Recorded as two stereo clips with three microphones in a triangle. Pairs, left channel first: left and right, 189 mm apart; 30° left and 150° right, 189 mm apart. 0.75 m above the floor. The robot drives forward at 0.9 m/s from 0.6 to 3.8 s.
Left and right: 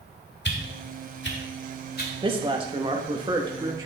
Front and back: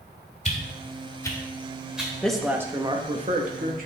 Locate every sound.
0.5 s a whoosh: 80° left, 1.5 m; by 2.1 s 125° left, 1.8 m
2.2 s a woman speaking: 50° right, 1.1 m; by 3.9 s 155° right, 1.5 m